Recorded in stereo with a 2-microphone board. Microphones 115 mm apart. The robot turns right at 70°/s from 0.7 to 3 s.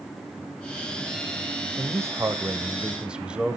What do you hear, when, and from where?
1.8 s a man speaking: 25° right (ahead or behind), 1.0 m; by 3.6 s 10° right (ahead or behind), 1.0 m